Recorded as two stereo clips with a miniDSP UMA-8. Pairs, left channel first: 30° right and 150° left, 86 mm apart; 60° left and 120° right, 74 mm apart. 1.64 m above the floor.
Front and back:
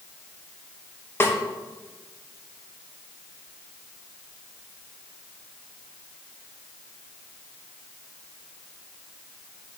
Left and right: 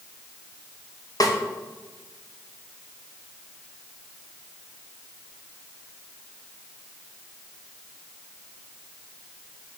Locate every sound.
1.2 s a snare drum: 30° left, 0.7 m